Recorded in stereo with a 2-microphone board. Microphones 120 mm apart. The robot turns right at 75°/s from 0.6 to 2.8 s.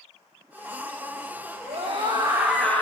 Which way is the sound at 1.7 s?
70° right.